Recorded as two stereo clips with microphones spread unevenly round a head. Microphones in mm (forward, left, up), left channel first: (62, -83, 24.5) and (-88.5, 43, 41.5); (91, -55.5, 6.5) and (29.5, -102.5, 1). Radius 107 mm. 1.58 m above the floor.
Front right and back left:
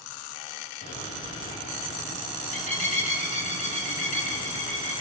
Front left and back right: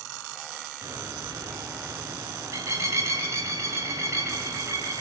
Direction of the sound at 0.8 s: 95° right.